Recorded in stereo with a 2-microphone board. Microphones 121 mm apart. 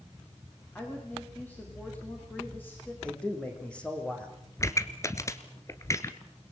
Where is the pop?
25° left (ahead or behind), 1.5 m.